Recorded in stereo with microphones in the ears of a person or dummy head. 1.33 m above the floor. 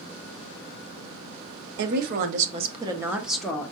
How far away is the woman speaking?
About 1.2 m.